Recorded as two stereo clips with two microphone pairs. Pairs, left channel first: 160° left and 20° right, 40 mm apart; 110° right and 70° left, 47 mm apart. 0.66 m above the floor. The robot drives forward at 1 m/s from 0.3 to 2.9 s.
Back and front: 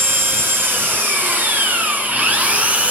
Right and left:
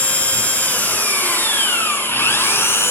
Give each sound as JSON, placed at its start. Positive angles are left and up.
{"t": 0.0, "sound": "an engine running", "azimuth_deg": -55, "distance_m": 6.0}